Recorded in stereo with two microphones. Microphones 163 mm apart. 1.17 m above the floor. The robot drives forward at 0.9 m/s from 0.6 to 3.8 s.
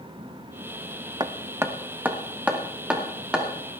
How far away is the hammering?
About 0.6 m.